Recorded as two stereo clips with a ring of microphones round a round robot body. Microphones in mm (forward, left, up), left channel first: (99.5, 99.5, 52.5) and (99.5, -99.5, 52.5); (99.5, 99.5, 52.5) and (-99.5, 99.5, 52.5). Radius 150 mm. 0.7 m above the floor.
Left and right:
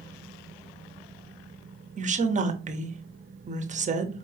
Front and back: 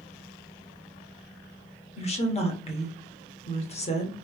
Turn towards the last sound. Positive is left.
turn(degrees=-50)